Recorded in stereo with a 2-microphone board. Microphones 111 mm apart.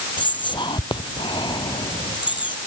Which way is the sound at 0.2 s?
40° left (ahead or behind).